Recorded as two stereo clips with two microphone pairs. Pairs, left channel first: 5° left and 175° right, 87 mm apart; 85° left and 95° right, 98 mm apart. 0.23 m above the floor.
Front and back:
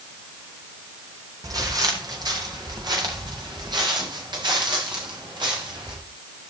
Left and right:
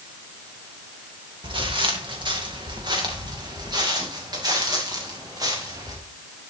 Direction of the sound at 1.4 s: 130° right.